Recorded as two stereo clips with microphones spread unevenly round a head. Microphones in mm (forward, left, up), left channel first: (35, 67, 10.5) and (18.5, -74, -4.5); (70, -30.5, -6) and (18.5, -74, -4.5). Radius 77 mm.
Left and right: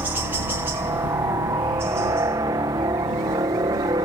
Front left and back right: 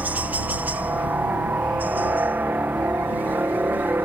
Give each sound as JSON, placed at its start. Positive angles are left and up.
{"t": 0.0, "sound": "a helicopter", "azimuth_deg": -135}